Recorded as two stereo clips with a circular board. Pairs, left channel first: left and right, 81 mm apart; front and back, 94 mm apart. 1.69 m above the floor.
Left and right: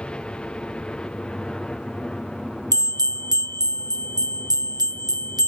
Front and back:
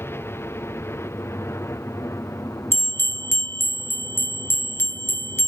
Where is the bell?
65° right.